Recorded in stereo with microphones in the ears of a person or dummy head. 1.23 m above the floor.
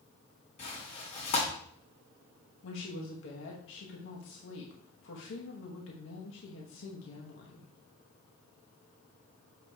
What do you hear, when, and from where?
0.6 s tearing paper: 40° left (ahead or behind), 2 m
2.6 s a woman speaking: 75° left (ahead or behind), 1.1 m